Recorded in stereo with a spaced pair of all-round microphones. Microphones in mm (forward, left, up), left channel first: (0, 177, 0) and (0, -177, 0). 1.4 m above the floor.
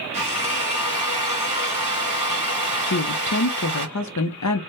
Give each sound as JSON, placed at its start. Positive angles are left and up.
{"t": 0.1, "sound": "a drill", "side_deg": -55, "distance_m": 1.4}
{"t": 2.9, "sound": "a woman speaking", "side_deg": 50, "distance_m": 0.6}